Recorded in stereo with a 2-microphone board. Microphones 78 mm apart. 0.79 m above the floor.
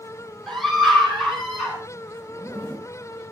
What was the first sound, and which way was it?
A scream, centre (ahead or behind).